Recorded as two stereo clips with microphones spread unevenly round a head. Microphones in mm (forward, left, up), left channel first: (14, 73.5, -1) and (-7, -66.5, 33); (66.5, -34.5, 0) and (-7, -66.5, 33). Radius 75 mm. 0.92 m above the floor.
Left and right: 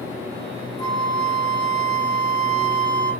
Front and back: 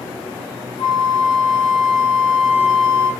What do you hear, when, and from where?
0.8 s a flute: 15° left, 2.5 m